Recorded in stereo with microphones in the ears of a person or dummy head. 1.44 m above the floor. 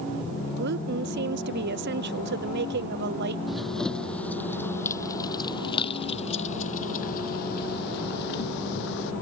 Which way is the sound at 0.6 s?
60° right (ahead or behind).